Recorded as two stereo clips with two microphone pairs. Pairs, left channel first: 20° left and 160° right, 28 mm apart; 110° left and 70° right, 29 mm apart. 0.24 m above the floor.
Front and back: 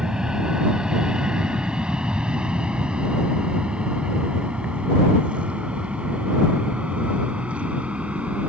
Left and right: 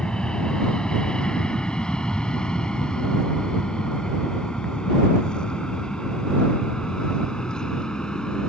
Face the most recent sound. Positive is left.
turn(degrees=170)